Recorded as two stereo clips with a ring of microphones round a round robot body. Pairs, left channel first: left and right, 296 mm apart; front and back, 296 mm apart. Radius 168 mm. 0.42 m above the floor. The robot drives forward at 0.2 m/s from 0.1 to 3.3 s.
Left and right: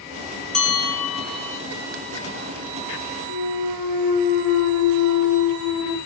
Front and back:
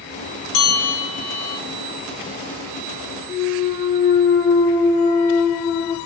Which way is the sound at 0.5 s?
5° left.